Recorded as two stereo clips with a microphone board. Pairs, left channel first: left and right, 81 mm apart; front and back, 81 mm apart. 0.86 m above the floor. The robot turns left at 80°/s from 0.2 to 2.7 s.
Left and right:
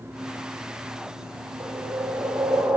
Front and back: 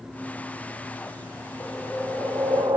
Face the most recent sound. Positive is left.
turn(degrees=-170)